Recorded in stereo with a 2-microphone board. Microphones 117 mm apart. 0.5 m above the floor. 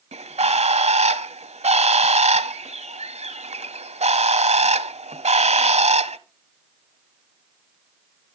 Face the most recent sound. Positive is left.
turn(degrees=-75)  # may be behind; listen again after turning